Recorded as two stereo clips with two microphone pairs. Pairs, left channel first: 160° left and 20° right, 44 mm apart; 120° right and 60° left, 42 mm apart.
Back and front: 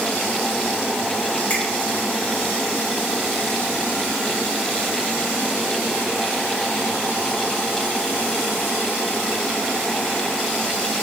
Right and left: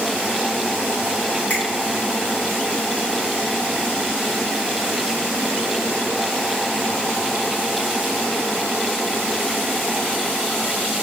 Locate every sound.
1.5 s a finger snap: 155° right, 1.8 m